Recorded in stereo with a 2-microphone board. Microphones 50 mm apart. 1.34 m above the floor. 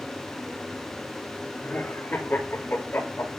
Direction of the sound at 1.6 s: 45° left (ahead or behind).